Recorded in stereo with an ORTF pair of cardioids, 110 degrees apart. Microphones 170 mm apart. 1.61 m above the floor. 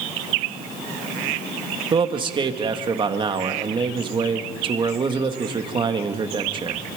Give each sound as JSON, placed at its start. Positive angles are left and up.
{"t": 1.9, "sound": "a man speaking", "azimuth_deg": -30, "distance_m": 2.0}